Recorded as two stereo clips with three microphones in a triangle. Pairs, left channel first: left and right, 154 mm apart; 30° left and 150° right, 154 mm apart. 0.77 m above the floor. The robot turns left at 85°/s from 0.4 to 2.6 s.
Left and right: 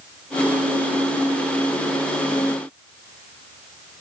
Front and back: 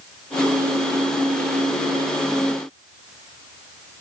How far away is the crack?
I don't hear a crack.